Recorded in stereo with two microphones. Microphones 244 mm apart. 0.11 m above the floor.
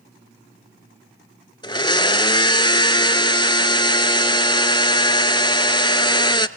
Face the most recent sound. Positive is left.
turn(degrees=20)  # may be behind; listen again after turning